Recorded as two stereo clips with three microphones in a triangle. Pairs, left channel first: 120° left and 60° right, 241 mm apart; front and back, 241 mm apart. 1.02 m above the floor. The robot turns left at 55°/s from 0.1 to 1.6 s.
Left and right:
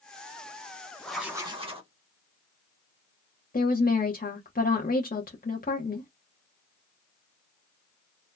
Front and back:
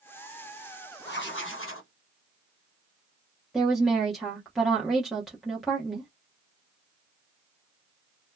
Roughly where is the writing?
Ahead left.